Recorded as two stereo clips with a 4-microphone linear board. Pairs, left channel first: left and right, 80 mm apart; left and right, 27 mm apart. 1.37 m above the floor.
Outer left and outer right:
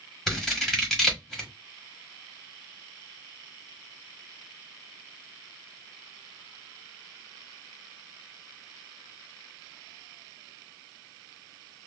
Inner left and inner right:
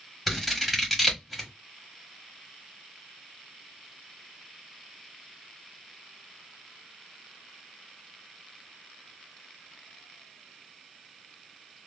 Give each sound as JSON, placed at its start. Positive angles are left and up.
{"t": 0.3, "sound": "scissors", "side_deg": 5, "distance_m": 1.1}